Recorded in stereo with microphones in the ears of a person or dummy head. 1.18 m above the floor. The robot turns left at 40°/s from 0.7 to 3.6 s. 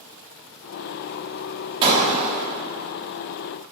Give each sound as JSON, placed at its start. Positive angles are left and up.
{"t": 1.8, "sound": "breaking glass", "side_deg": -30, "distance_m": 1.0}